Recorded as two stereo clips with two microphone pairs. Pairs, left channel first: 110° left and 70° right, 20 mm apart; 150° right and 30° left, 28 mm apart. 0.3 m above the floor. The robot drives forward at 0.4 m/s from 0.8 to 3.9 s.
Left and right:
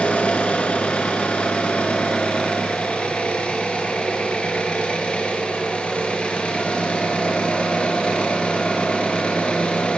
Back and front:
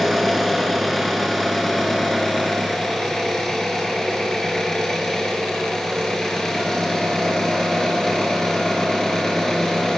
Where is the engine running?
125° left, 3.5 m; by 10.0 s 140° left, 4.5 m.